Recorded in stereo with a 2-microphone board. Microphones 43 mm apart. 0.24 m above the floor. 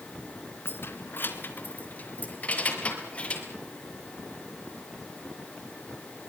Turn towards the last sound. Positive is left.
turn(degrees=25)  # may be behind; listen again after turning